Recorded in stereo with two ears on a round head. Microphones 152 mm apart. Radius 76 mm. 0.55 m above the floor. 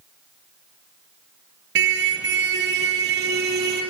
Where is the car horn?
80° right, 4.5 m; by 3.8 s 65° right (ahead or behind), 6.5 m.